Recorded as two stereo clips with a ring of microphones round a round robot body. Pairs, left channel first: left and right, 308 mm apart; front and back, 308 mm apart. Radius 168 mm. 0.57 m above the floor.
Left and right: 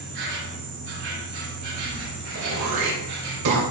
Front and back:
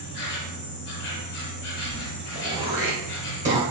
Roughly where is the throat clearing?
Right.